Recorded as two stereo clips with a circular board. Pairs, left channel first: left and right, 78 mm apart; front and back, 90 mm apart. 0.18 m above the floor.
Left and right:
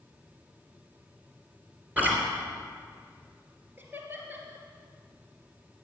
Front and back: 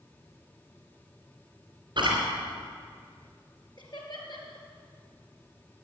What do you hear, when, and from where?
2.0 s chewing: 160° right, 3.5 m
3.8 s laughter: 30° right, 3.5 m